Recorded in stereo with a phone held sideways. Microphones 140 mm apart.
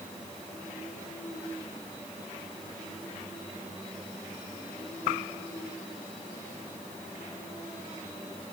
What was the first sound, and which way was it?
Only background noise.